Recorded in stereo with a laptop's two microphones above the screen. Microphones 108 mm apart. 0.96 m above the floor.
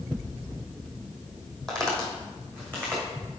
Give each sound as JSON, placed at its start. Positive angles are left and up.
{"t": 1.7, "sound": "footsteps", "side_deg": 5, "distance_m": 1.6}